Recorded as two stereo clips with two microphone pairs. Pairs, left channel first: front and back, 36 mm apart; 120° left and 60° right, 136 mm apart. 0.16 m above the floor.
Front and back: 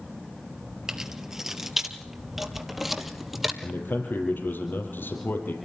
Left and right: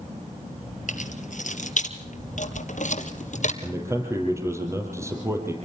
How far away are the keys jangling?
About 2.5 m.